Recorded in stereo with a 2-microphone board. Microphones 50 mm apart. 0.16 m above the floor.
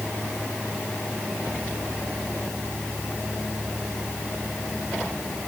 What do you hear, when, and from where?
Only background noise.